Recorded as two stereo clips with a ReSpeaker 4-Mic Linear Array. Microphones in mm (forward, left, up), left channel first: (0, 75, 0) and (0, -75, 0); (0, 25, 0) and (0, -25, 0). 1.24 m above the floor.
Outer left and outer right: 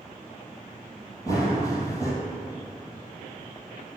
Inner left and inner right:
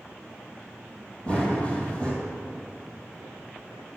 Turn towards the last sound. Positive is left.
turn(degrees=25)  # may be behind; listen again after turning